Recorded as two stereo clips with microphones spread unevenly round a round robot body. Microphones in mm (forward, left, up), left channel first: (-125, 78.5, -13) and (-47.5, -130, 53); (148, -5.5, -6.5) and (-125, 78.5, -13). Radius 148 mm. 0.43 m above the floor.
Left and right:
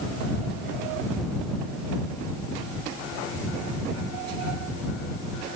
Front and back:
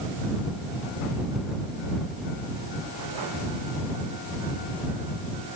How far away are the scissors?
No scissors in this recording.